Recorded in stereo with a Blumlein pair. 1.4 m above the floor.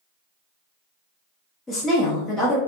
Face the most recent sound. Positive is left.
turn(degrees=10)